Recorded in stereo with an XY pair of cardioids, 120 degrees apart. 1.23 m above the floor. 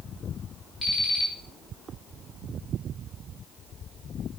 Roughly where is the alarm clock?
Ahead.